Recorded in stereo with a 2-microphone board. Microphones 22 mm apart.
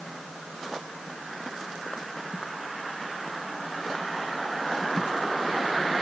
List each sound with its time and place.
Only background noise.